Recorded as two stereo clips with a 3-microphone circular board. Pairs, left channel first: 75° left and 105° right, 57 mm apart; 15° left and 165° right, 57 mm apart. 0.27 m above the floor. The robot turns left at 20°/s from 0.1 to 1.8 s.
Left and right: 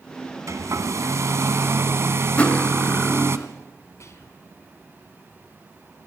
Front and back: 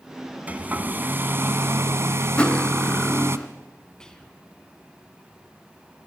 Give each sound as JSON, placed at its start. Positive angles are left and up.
{"t": 0.5, "sound": "a hair dryer", "azimuth_deg": -105, "distance_m": 1.3}
{"t": 2.4, "sound": "cutlery clinking", "azimuth_deg": 55, "distance_m": 0.5}
{"t": 4.0, "sound": "whispering", "azimuth_deg": 90, "distance_m": 3.0}